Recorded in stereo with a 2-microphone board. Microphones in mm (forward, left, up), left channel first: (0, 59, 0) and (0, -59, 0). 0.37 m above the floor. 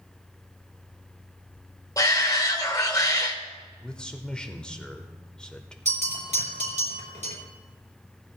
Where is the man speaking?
10° left (ahead or behind), 0.8 m.